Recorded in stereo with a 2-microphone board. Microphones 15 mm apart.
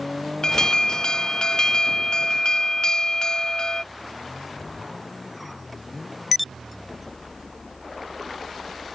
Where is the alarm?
60° left (ahead or behind).